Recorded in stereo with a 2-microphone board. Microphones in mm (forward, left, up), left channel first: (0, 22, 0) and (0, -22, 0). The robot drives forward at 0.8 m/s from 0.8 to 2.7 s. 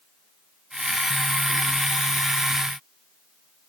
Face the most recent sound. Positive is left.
No sound to turn to.